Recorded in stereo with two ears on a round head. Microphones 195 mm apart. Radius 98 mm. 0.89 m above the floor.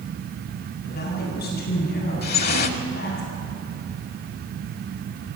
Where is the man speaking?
45° left (ahead or behind), 8.5 m.